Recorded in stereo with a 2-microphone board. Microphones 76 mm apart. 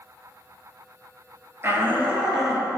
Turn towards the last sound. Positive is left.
turn(degrees=5)  # may be behind; listen again after turning